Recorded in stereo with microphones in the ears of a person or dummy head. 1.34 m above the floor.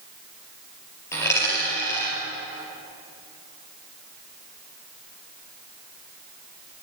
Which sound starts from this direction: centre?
A dropped coin, at 1.1 s.